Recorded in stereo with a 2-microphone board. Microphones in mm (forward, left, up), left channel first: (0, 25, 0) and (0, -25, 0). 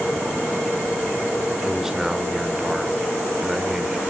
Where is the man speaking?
10° right (ahead or behind), 1.2 m.